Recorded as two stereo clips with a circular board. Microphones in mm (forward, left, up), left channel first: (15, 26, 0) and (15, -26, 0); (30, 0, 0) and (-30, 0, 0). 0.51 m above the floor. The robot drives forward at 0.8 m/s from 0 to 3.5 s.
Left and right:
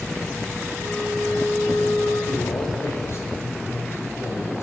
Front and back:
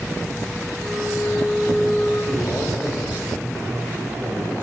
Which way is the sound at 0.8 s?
80° left.